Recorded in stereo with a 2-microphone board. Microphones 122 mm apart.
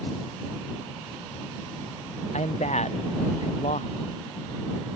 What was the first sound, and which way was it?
A man speaking, 65° left (ahead or behind).